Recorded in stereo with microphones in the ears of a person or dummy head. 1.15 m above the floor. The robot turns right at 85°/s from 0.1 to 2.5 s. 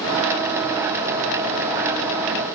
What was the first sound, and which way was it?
Only background noise.